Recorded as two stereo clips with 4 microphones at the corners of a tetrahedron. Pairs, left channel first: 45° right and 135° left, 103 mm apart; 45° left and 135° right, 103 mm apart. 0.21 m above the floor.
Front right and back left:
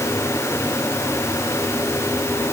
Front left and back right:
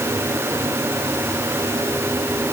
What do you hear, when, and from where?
Only background noise.